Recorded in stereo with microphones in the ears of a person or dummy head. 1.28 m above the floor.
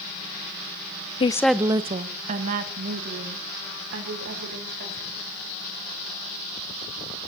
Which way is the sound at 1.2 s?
30° left (ahead or behind).